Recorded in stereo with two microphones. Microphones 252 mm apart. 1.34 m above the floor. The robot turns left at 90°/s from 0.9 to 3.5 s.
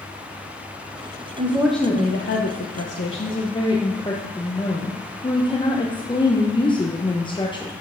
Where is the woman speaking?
150° right, 0.9 m; by 7.7 s 20° left, 0.9 m.